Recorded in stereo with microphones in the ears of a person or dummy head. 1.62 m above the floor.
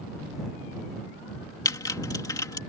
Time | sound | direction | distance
1.6 | typing on a keyboard | 20° left (ahead or behind) | ?